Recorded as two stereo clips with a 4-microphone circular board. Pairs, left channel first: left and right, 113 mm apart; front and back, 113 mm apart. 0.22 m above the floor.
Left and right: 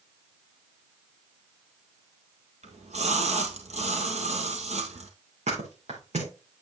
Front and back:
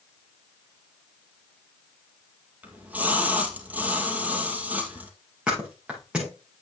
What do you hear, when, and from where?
2.6 s a splash: 105° right, 1.8 m
5.5 s a thud: 100° right, 5.5 m